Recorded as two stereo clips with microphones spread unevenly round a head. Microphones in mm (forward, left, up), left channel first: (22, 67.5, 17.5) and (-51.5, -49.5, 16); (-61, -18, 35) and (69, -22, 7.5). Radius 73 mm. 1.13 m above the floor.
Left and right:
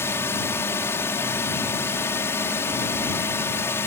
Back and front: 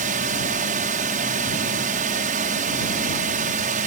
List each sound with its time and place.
0.0 s a drone: 15° right